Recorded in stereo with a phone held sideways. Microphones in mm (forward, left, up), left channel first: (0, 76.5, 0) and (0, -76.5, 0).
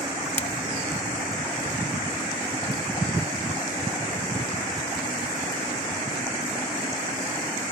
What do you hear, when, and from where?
0.4 s breaking glass: 45° left (ahead or behind)